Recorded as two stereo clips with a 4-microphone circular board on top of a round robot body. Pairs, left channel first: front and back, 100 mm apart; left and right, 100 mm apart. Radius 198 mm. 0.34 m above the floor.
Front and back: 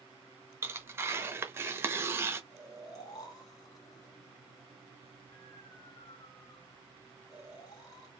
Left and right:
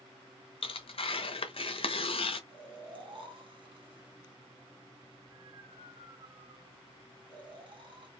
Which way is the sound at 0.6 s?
115° left.